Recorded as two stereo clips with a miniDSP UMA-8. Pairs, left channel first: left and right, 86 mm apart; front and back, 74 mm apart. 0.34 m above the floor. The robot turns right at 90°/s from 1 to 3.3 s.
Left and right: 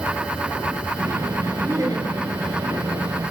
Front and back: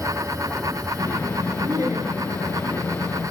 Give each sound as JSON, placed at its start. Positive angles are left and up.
{"t": 1.6, "sound": "laughter", "azimuth_deg": -155, "distance_m": 6.0}